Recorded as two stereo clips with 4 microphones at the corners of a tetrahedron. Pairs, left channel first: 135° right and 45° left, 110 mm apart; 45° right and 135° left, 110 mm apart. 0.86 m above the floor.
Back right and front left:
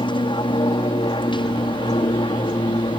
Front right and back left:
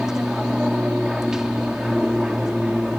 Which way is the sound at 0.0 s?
140° right.